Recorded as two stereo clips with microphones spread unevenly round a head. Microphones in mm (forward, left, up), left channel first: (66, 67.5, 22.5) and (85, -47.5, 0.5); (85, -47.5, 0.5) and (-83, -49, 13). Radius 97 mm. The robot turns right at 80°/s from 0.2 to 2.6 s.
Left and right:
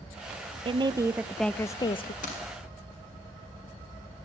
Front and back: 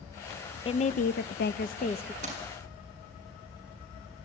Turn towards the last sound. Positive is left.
turn(degrees=150)